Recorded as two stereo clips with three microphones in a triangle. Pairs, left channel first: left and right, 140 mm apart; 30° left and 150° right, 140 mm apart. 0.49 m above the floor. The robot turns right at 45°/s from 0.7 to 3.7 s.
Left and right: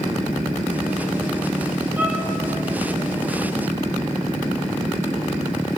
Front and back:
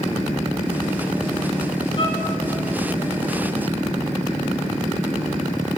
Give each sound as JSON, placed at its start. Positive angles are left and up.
{"t": 2.0, "sound": "a violin", "azimuth_deg": -15, "distance_m": 7.0}